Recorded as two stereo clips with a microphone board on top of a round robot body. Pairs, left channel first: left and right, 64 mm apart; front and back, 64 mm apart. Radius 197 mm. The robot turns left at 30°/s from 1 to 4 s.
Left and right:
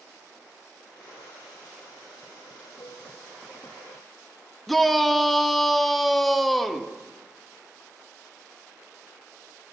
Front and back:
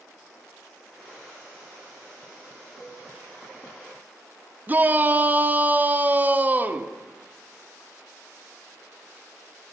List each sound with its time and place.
2.8 s a cowbell: 95° left, 1.0 m; by 3.1 s 90° left, 1.0 m
4.7 s a shout: 175° left, 0.9 m